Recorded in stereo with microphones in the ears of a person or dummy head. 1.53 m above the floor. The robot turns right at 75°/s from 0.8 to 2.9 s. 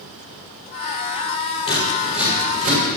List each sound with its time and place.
1.7 s scissors: 25° left (ahead or behind), 6.5 m; by 2.8 s 65° right (ahead or behind), 6.5 m